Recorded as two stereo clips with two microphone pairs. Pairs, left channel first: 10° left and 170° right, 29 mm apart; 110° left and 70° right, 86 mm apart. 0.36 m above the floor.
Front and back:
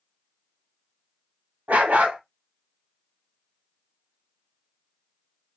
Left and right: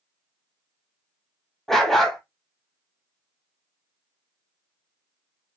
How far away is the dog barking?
About 0.8 m.